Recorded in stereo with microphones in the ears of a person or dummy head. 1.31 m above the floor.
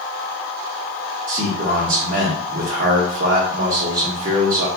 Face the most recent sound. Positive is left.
turn(degrees=-45)  # may be behind; listen again after turning